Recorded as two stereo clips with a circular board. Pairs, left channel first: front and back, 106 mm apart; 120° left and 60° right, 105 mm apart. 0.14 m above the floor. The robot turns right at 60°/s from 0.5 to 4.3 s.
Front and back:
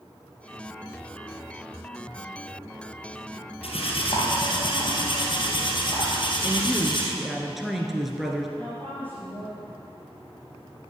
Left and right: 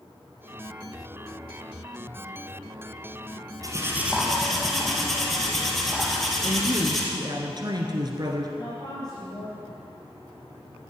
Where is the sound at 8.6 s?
75° left, 4 m.